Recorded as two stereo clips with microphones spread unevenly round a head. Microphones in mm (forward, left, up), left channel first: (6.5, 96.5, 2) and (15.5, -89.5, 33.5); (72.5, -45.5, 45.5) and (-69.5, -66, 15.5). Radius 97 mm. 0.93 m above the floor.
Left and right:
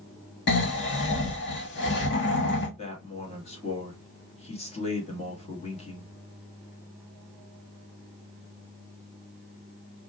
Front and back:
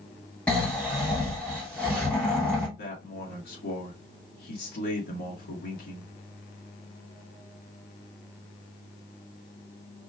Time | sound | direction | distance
0.5 | snoring | 95° left | 1.3 m
2.8 | a man speaking | 40° left | 1.3 m